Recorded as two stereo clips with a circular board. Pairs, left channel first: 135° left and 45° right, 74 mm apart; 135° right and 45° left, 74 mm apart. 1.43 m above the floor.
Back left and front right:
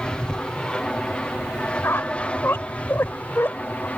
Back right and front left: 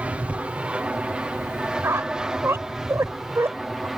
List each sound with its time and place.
0.0 s an aircraft: 80° left; by 4.0 s 125° left
1.8 s a squeak: 85° left